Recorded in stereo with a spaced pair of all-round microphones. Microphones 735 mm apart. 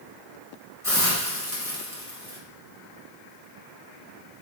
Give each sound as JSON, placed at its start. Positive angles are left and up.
{"t": 0.8, "sound": "a hiss", "side_deg": -5, "distance_m": 1.1}